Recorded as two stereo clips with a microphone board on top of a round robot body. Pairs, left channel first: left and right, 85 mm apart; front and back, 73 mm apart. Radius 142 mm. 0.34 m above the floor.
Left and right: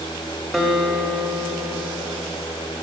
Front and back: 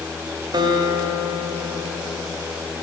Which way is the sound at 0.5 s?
170° right.